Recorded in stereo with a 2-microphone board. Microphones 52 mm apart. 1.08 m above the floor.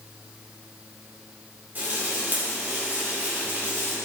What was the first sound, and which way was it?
Frying, 35° right (ahead or behind).